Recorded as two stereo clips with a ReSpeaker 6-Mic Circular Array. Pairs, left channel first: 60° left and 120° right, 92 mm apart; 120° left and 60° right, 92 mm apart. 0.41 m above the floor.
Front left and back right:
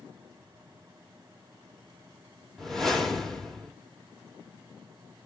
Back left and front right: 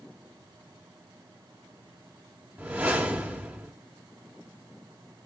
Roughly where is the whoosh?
Ahead right.